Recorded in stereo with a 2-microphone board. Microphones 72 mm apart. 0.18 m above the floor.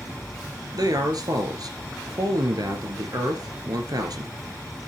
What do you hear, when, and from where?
0.7 s a man speaking: 65° right (ahead or behind), 2.5 m